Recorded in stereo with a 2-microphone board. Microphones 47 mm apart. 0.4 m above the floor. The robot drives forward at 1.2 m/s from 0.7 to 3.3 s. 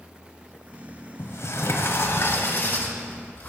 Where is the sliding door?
65° left (ahead or behind), 1.7 m; by 3.5 s 35° left (ahead or behind), 3 m.